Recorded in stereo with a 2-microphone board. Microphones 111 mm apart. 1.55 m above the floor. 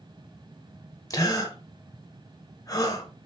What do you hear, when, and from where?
1.1 s a gasp: 35° left (ahead or behind), 1.5 m